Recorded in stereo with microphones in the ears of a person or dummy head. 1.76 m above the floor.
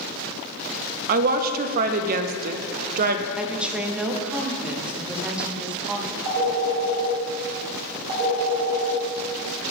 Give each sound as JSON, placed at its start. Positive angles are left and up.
{"t": 1.1, "sound": "a woman speaking", "side_deg": -50, "distance_m": 0.5}
{"t": 3.4, "sound": "a woman speaking", "side_deg": -5, "distance_m": 0.9}
{"t": 6.2, "sound": "a phone ringing", "side_deg": -45, "distance_m": 2.5}